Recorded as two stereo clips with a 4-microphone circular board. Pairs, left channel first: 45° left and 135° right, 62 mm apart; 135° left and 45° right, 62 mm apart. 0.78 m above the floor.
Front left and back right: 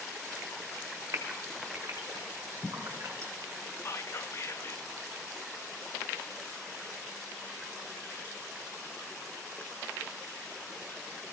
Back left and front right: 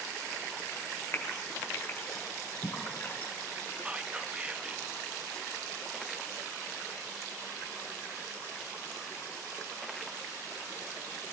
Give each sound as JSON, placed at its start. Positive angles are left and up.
{"t": 1.1, "sound": "a gasp", "azimuth_deg": -175, "distance_m": 2.5}
{"t": 3.9, "sound": "whispering", "azimuth_deg": 25, "distance_m": 0.6}